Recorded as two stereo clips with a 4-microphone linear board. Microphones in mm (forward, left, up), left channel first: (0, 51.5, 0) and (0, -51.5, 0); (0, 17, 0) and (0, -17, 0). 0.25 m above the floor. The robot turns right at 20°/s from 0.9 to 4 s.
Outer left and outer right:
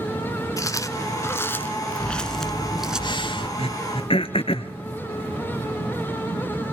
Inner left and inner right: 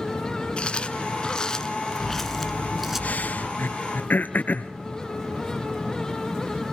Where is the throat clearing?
75° left (ahead or behind), 1.1 m; by 4.7 s 65° left (ahead or behind), 1.1 m.